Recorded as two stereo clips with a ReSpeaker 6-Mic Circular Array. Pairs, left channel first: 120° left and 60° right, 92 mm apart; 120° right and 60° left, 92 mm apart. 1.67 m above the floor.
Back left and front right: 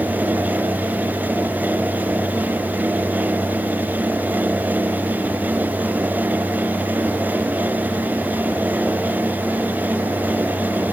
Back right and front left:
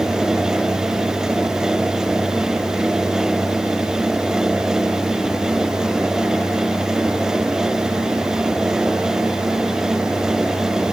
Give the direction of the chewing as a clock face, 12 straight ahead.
No chewing in this recording.